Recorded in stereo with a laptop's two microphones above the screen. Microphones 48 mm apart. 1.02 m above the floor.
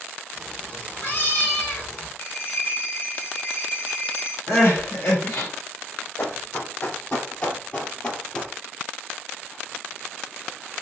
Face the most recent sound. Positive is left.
turn(degrees=15)  # may be behind; listen again after turning